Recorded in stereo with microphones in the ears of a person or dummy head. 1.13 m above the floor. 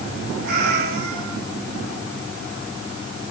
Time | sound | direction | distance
0.4 | a cat meowing | 60° right (ahead or behind) | 6.5 m